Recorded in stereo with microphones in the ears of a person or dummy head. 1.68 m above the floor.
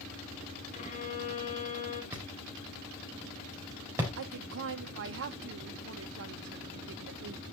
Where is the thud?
15° right (ahead or behind), 4 m.